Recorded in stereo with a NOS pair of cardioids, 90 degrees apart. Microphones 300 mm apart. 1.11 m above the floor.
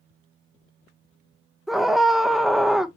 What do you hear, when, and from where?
1.7 s a scream: straight ahead, 0.9 m